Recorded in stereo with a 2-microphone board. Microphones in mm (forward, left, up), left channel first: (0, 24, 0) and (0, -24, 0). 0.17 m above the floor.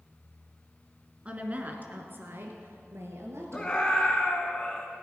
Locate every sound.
1.2 s a woman speaking: 25° right (ahead or behind), 1.7 m; by 3.8 s 65° right (ahead or behind), 3 m
3.5 s a scream: 15° left (ahead or behind), 1.5 m